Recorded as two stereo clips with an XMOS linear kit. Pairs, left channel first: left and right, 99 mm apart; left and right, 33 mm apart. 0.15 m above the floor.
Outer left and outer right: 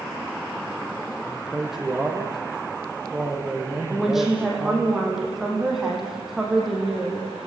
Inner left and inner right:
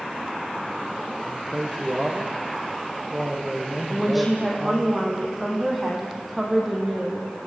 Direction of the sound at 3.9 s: 5° right (ahead or behind).